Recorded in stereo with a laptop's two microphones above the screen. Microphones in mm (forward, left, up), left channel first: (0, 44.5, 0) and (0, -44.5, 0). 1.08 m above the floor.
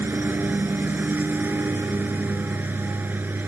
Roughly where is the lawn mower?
Right.